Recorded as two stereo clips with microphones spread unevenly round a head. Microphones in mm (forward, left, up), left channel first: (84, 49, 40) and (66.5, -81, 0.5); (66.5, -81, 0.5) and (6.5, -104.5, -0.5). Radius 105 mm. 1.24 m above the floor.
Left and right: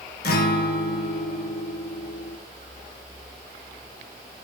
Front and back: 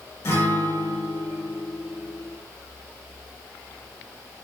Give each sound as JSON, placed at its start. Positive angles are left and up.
{"t": 0.2, "sound": "a guitar", "azimuth_deg": 85, "distance_m": 1.4}